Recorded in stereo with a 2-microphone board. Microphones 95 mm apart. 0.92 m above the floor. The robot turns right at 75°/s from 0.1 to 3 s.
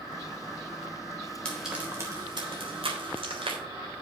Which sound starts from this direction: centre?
Frying, at 1.4 s.